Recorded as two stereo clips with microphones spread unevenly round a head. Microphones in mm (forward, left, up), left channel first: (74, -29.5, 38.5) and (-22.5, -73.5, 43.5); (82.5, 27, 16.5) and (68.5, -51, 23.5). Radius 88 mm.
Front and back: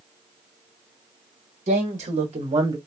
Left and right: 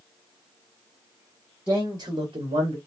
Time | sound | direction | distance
1.7 | a man speaking | straight behind | 1.5 m